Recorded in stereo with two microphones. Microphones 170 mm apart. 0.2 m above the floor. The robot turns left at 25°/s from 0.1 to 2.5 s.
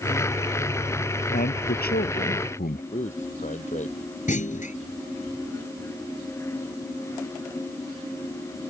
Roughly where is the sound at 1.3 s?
Left.